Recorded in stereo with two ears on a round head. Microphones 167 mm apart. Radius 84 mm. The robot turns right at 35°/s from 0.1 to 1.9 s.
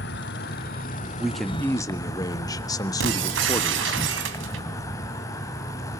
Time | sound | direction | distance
0.0 | an insect | 95° left | 1.6 m
1.2 | a man speaking | 5° right (ahead or behind) | 1.4 m
3.0 | breaking glass | 75° right (ahead or behind) | 2.5 m